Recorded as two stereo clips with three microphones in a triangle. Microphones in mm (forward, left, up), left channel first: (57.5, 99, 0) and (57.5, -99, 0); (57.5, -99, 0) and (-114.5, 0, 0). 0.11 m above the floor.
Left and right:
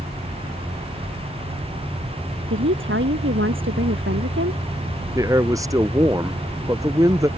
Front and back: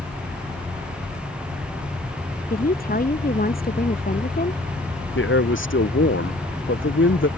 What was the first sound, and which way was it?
A woman speaking, 75° right.